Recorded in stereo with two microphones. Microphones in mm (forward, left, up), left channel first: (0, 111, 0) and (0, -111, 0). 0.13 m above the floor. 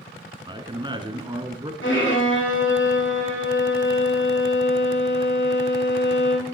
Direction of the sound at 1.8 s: 60° left (ahead or behind).